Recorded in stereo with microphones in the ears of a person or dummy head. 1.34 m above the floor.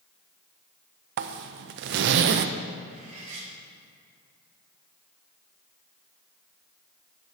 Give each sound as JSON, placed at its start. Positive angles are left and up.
{"t": 1.2, "sound": "a zipper", "side_deg": -55, "distance_m": 0.5}
{"t": 2.9, "sound": "cutlery clinking", "side_deg": -35, "distance_m": 2.0}